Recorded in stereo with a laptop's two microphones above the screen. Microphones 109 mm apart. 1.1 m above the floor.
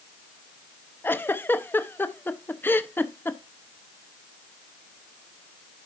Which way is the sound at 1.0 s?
20° left (ahead or behind).